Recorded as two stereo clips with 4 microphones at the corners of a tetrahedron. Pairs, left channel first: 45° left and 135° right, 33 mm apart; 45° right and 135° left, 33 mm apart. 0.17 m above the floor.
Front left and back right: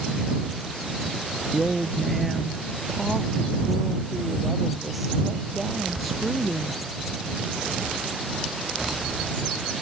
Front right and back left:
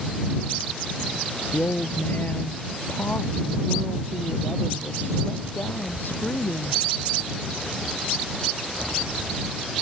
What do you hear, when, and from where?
1.5 s a woman speaking: 50° right